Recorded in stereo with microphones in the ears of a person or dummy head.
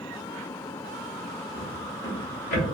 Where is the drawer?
50° left (ahead or behind), 1.3 m.